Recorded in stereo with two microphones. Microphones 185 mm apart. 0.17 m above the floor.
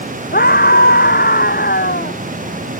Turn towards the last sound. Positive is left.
turn(degrees=55)  # may be behind; listen again after turning